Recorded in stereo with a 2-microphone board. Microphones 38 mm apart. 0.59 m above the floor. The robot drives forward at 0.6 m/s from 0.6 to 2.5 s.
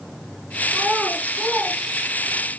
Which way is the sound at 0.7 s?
25° right (ahead or behind).